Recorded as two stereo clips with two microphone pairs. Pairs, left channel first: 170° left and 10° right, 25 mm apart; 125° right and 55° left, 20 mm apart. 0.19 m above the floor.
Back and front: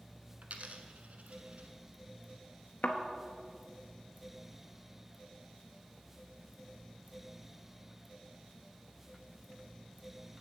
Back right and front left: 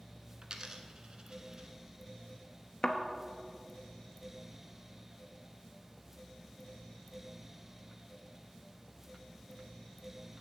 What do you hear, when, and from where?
0.4 s a dropped coin: straight ahead, 0.8 m
2.8 s a thud: 175° right, 0.8 m